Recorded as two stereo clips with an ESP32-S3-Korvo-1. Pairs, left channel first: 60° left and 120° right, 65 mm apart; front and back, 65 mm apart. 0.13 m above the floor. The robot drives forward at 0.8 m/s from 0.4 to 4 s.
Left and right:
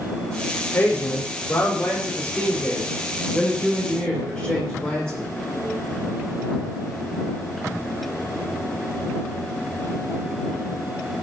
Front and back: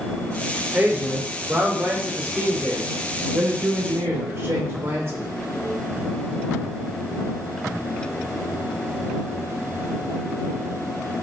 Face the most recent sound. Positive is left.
turn(degrees=135)